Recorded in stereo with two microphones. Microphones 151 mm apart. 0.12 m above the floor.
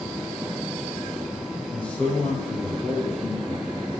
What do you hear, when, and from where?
1.7 s a man speaking: 10° left (ahead or behind), 4.5 m; by 3.8 s centre (ahead or behind), 3 m